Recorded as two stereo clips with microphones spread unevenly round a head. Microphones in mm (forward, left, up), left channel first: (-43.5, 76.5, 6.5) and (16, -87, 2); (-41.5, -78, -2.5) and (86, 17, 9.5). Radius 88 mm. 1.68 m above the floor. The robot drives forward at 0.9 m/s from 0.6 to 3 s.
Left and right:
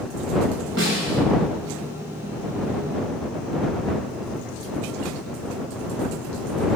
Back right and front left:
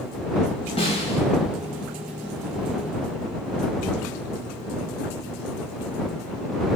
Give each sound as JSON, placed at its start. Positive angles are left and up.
{"t": 0.8, "sound": "a snare drum", "azimuth_deg": -90, "distance_m": 8.5}